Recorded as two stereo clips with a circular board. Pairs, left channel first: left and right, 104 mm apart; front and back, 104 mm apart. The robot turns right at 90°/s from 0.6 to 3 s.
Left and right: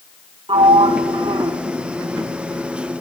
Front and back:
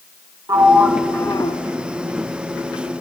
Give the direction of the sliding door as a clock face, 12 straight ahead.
4 o'clock.